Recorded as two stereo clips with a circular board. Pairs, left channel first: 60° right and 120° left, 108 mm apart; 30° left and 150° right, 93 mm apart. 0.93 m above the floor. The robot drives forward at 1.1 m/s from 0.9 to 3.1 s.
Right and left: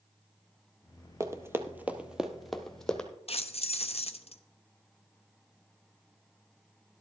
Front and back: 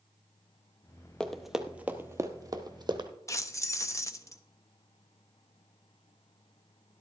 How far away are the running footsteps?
About 1.0 m.